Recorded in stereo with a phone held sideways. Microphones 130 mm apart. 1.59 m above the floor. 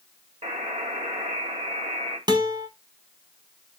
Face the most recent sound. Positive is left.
turn(degrees=-35)  # may be behind; listen again after turning